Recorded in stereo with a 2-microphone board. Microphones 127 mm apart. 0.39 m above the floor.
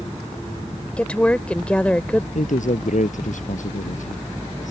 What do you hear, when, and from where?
1.0 s a woman speaking: 10° left (ahead or behind)
2.4 s a man speaking: 85° left